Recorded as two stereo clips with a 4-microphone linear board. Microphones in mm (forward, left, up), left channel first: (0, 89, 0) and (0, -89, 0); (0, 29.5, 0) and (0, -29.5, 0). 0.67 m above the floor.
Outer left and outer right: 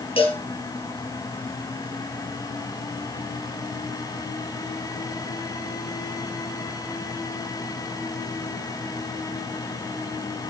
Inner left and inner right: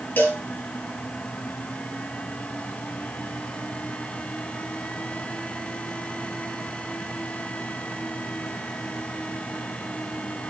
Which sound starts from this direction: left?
A cowbell, at 0.2 s.